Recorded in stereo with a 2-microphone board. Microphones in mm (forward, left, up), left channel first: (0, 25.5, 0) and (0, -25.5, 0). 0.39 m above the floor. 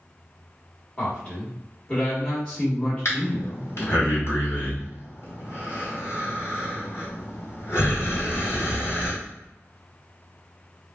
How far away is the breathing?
About 1.9 m.